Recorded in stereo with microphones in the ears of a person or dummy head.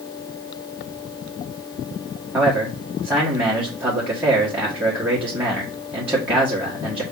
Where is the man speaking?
5° right (ahead or behind), 1.4 m.